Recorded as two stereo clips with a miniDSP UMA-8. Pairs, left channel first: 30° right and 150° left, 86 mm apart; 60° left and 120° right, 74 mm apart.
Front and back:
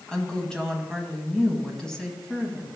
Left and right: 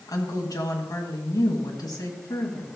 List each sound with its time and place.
0.1 s a woman speaking: 50° left, 1.7 m